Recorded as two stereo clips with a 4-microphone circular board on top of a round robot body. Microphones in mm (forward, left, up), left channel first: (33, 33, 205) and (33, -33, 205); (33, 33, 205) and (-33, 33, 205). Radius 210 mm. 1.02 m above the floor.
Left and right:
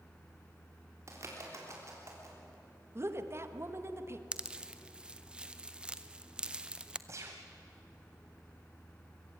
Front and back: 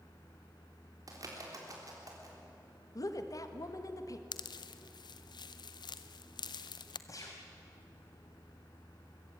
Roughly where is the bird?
Behind right.